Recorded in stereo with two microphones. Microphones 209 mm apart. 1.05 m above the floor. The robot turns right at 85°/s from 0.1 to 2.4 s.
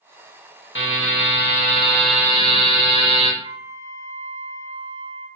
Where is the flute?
20° right (ahead or behind), 1.5 m.